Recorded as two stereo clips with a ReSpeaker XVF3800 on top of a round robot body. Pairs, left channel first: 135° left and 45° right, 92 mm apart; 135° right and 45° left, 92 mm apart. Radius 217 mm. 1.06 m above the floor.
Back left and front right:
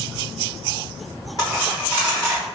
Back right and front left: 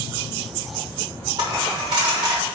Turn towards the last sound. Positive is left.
turn(degrees=80)